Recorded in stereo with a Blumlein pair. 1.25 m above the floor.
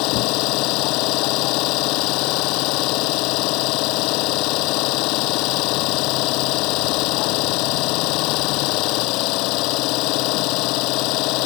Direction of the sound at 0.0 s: 40° left.